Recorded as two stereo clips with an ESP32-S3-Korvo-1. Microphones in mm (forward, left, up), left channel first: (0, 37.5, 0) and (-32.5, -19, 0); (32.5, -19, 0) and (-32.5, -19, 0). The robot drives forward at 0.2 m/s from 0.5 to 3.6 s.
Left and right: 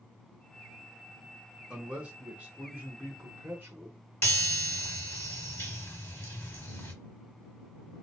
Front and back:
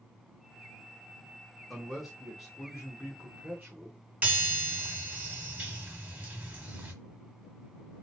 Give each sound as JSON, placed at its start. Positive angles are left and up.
{"t": 1.7, "sound": "a man speaking", "azimuth_deg": -80, "distance_m": 0.8}
{"t": 4.2, "sound": "a chime", "azimuth_deg": 115, "distance_m": 1.0}